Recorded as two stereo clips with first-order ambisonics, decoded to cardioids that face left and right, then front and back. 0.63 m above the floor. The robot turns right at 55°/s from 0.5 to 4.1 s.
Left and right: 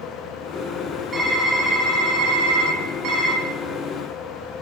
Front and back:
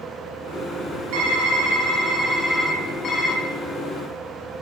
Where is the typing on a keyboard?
165° right, 1.0 m; by 3.4 s 40° right, 1.0 m.